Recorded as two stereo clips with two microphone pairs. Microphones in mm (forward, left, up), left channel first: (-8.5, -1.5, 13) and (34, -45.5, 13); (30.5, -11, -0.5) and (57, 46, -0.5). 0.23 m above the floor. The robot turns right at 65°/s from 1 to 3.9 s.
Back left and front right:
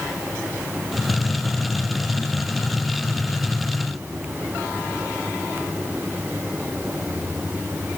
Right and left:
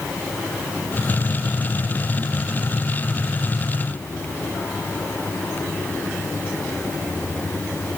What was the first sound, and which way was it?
Only background noise.